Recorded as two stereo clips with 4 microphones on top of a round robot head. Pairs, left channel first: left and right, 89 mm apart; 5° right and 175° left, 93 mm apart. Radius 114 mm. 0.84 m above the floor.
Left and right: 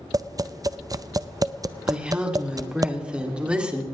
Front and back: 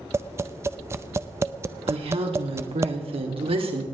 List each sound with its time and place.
0.1 s tapping: 130° right, 0.6 m
1.9 s a woman speaking: 170° right, 2.5 m